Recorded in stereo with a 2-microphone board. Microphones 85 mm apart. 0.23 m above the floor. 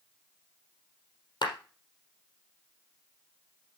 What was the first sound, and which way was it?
A clap, 60° left (ahead or behind).